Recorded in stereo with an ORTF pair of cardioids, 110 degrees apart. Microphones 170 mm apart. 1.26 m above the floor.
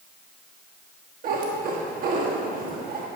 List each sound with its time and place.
1.2 s a cat meowing: 60° right, 1.3 m